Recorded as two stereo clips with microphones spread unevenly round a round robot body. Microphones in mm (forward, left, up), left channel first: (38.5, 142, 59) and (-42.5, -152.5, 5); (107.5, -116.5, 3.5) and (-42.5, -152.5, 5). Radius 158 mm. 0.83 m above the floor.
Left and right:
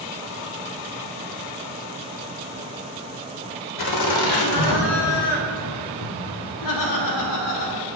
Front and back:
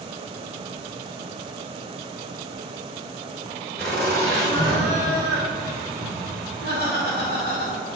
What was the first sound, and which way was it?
Laughter, 100° left.